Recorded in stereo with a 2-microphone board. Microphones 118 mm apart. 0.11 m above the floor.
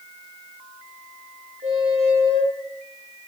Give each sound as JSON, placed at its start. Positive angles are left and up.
{"t": 1.6, "sound": "a squeak", "side_deg": -65, "distance_m": 7.0}